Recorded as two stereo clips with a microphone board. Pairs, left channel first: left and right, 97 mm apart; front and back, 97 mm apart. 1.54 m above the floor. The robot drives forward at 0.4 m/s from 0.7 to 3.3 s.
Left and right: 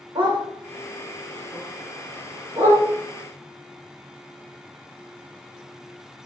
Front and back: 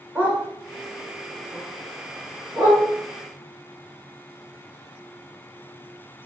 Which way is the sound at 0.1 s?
110° right.